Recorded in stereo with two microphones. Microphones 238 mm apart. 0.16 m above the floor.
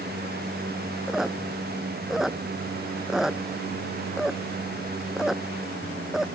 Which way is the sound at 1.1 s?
Centre (ahead or behind).